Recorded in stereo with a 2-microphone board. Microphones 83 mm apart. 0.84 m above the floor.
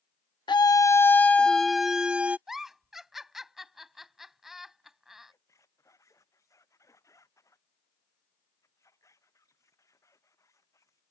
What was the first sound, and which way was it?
A scream, 65° left (ahead or behind).